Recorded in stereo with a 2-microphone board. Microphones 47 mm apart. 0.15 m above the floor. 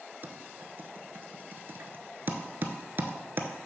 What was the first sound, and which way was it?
Typing on a keyboard, 45° right (ahead or behind).